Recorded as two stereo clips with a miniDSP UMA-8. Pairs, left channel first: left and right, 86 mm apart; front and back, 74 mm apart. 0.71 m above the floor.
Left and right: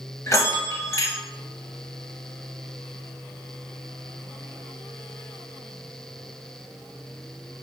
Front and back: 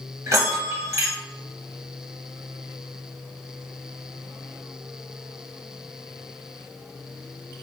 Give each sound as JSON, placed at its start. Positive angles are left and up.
{"t": 0.3, "sound": "a bell", "azimuth_deg": 140, "distance_m": 0.8}